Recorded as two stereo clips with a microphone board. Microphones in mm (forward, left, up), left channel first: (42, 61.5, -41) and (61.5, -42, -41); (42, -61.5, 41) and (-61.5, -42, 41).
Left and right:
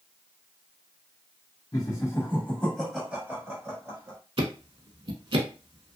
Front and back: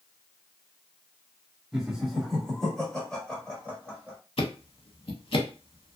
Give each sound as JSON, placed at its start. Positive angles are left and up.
{"t": 1.7, "sound": "laughter", "azimuth_deg": 85, "distance_m": 1.4}
{"t": 4.4, "sound": "ticking", "azimuth_deg": -45, "distance_m": 0.6}